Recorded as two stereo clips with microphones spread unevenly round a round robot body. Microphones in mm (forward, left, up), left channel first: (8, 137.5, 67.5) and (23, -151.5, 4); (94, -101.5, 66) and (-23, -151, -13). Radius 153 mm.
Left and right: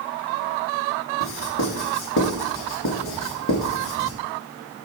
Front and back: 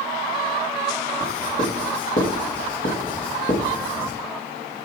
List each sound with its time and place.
1.2 s writing: 50° left, 2 m